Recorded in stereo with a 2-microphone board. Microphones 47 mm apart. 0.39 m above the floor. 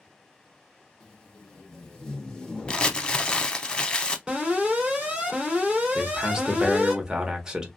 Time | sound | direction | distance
1.0 | tape being pulled | 15° left (ahead or behind) | 0.8 m
2.7 | crumpling | 20° left (ahead or behind) | 0.5 m
4.3 | an alarm | 20° right (ahead or behind) | 2.5 m
6.0 | a man speaking | 15° right (ahead or behind) | 0.8 m